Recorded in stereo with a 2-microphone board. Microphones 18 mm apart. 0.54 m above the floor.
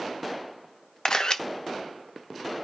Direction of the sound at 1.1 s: 40° left (ahead or behind).